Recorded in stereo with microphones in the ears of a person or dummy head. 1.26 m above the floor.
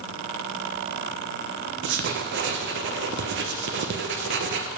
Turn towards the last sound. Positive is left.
turn(degrees=-55)  # may be behind; listen again after turning